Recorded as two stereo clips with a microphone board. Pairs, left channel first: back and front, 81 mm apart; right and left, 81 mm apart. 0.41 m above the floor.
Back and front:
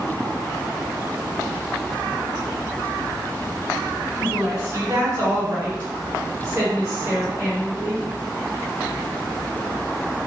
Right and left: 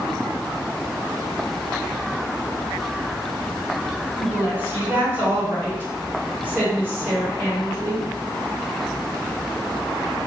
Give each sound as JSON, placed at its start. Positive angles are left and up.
{"t": 4.2, "sound": "a woman speaking", "azimuth_deg": 40, "distance_m": 1.7}